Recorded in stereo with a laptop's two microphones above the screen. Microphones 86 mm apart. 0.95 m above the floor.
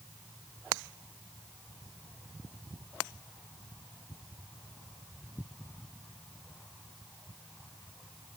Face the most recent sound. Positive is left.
No sound to turn to.